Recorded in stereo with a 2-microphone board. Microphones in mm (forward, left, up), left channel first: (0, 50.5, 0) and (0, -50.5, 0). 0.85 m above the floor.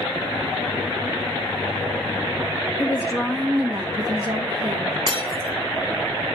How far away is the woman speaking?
About 1.1 m.